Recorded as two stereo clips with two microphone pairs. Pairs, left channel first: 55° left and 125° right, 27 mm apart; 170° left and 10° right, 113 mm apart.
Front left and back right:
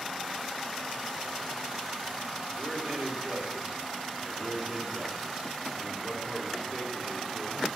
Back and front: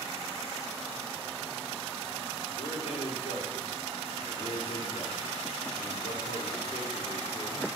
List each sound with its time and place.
2.6 s a man speaking: 165° right, 3.5 m; by 7.7 s 155° left, 4 m